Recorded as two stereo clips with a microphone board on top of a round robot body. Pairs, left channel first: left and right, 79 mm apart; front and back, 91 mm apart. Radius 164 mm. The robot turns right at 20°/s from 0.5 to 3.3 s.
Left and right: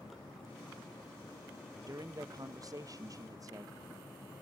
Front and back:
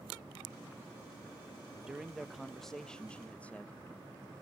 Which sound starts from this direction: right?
A man speaking, at 1.9 s.